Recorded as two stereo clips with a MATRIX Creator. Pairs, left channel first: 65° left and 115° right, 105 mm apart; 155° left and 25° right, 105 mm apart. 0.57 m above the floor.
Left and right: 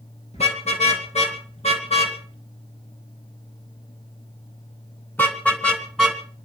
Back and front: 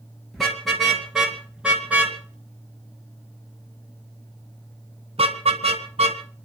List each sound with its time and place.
0.3 s a car horn: 70° left, 5 m; by 6.2 s 20° right, 3 m